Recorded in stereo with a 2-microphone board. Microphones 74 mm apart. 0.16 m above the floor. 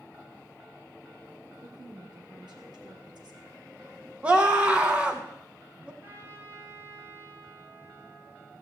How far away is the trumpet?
About 3 m.